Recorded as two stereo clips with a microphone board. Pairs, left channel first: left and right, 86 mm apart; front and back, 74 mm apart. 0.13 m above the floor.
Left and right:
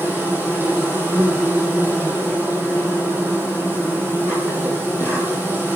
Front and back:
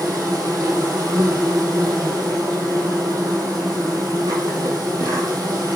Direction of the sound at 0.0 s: 155° right.